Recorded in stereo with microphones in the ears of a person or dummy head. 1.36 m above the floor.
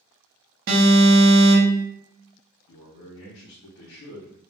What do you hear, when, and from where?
0.7 s an alarm: 50° right (ahead or behind), 1.0 m
2.7 s a man speaking: 75° left (ahead or behind), 0.6 m